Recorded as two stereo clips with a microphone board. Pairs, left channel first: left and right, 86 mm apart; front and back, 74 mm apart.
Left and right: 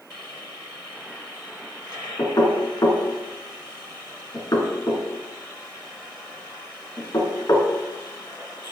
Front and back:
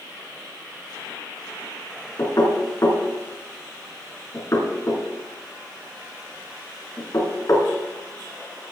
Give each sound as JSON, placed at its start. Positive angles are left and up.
{"t": 2.2, "sound": "knocking", "azimuth_deg": 45, "distance_m": 2.5}